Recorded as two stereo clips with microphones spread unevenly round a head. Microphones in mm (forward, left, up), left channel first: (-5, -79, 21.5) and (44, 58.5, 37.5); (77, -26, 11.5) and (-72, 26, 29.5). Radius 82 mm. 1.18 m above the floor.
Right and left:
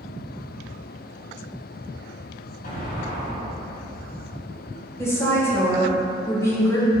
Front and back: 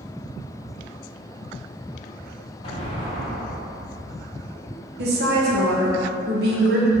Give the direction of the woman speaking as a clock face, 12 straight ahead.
6 o'clock.